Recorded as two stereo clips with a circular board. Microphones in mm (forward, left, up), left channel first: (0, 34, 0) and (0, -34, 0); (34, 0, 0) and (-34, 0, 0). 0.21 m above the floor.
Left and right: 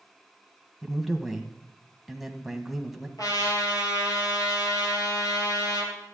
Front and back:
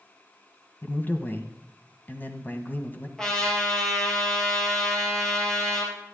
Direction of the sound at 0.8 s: 5° right.